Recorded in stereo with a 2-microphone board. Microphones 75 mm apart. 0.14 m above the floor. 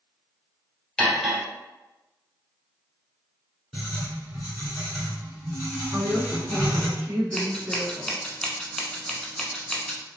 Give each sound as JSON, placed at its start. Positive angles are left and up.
{"t": 1.0, "sound": "cutlery clinking", "side_deg": 10, "distance_m": 1.6}
{"t": 3.7, "sound": "writing", "side_deg": 0, "distance_m": 1.7}
{"t": 5.9, "sound": "a woman speaking", "side_deg": -20, "distance_m": 1.0}
{"t": 7.3, "sound": "scissors", "side_deg": 10, "distance_m": 0.6}